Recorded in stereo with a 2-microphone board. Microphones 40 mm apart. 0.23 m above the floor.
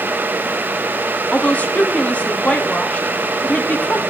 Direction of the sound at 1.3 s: 35° left (ahead or behind).